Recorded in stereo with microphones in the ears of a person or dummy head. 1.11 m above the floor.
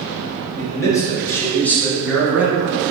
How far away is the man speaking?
About 1.7 m.